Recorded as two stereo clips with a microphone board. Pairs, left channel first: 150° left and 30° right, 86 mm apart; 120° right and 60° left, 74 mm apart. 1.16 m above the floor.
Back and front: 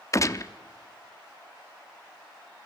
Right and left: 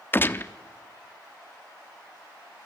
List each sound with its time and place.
0.1 s a gunshot: 175° right, 0.8 m